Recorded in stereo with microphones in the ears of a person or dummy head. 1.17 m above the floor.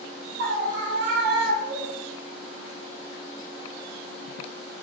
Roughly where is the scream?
Right.